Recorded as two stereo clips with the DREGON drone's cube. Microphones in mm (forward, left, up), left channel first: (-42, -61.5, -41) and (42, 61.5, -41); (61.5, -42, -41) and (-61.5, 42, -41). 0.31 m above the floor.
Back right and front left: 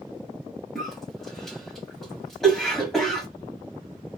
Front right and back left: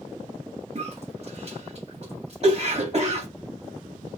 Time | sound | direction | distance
0.8 | a cough | 150° left | 1.5 m